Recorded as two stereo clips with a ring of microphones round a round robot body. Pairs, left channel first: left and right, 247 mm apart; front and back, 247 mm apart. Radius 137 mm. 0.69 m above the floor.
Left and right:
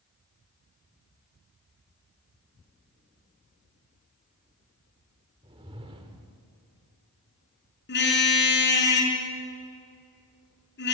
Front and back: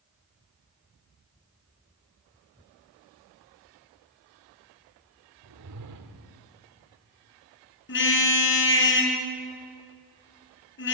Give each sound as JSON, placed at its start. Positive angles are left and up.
{"t": 5.4, "sound": "a whoosh", "azimuth_deg": -160, "distance_m": 1.4}
{"t": 7.9, "sound": "a car horn", "azimuth_deg": 45, "distance_m": 5.0}